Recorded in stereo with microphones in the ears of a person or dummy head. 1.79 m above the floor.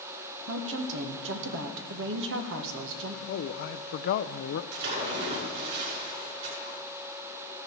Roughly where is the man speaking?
Left.